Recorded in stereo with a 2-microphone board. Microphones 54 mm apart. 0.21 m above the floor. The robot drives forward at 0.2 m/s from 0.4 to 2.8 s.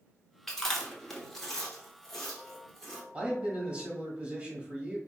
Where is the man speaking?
20° right (ahead or behind), 1.1 m.